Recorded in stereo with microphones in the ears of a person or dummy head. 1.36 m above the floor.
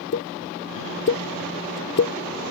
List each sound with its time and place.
0.1 s a pop: 50° left (ahead or behind)